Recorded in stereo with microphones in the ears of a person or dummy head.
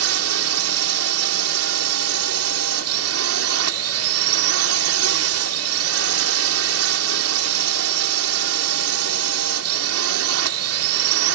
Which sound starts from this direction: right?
A drone, at 0.0 s.